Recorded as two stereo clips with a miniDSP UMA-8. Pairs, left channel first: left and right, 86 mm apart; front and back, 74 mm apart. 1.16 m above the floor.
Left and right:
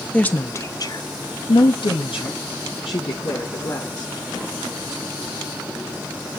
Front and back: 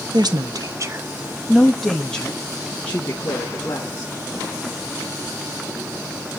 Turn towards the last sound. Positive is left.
turn(degrees=60)